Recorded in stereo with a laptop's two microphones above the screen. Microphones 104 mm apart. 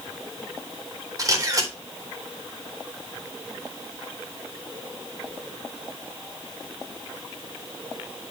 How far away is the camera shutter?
About 4 m.